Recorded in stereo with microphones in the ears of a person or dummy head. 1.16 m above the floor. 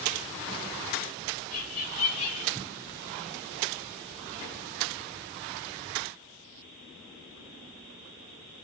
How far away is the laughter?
About 4 m.